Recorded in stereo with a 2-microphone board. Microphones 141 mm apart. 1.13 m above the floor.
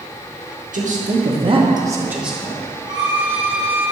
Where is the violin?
35° right (ahead or behind), 1.6 m.